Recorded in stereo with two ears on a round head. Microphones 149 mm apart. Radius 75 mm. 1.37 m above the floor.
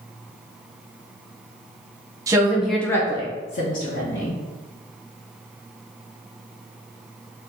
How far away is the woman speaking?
About 0.7 m.